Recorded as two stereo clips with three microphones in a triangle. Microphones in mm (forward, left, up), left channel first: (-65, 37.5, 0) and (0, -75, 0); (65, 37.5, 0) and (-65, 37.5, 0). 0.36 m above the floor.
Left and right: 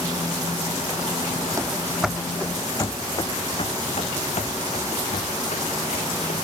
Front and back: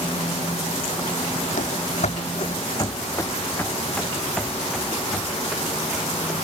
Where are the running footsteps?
5° left; by 6.3 s 95° left.